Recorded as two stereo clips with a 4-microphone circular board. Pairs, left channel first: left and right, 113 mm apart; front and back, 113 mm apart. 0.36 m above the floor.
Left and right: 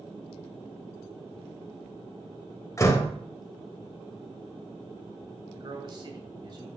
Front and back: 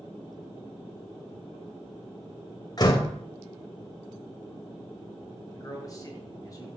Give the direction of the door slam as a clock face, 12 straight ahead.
11 o'clock.